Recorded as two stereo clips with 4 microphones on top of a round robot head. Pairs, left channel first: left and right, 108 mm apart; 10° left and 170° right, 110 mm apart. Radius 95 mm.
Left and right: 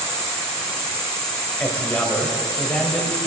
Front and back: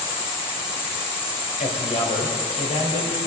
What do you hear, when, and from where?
0.0 s an insect: 10° left, 3.5 m
1.6 s a man speaking: 15° left, 2.5 m